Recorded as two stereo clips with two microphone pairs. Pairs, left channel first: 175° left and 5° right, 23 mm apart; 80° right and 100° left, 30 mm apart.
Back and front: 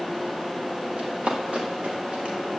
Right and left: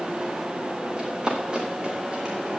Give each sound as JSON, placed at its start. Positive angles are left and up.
{"t": 1.0, "sound": "running footsteps", "azimuth_deg": 30, "distance_m": 7.0}